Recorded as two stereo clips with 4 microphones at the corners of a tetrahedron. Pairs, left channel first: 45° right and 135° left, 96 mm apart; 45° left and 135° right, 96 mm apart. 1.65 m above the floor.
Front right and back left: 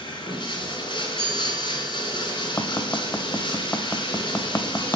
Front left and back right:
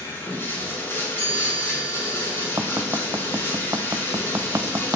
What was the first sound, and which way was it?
Running water, 20° right.